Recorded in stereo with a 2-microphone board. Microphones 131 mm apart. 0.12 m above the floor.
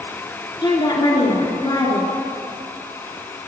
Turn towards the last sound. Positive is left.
turn(degrees=35)  # may be behind; listen again after turning